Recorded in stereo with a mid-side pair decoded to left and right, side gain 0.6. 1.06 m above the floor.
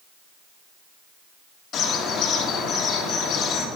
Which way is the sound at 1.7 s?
50° left.